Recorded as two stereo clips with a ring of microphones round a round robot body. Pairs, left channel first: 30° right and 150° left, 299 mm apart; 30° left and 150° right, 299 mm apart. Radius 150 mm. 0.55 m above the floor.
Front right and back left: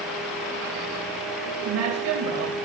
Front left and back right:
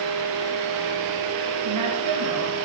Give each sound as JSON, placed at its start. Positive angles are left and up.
{"t": 1.6, "sound": "a woman speaking", "azimuth_deg": -175, "distance_m": 2.5}